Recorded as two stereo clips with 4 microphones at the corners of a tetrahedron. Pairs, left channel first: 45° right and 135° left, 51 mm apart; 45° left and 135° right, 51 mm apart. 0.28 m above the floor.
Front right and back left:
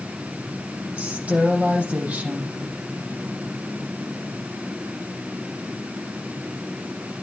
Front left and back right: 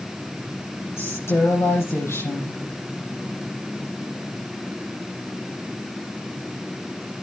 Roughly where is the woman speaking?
Left.